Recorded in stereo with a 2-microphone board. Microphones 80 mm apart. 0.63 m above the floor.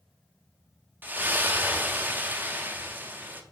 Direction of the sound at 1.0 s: 25° right (ahead or behind).